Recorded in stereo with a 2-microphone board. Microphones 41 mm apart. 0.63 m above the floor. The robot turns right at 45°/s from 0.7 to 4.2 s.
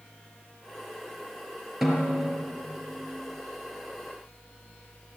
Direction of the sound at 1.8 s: 5° right (ahead or behind).